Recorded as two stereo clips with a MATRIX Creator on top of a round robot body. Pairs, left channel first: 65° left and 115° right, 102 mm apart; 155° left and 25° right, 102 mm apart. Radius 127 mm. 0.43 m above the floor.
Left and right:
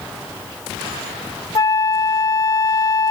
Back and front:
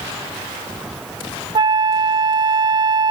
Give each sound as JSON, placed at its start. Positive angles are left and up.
{"t": 1.6, "sound": "a flute", "azimuth_deg": 15}